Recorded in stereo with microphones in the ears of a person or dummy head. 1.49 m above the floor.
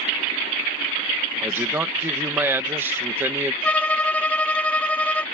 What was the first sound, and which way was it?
A man speaking, 15° right (ahead or behind).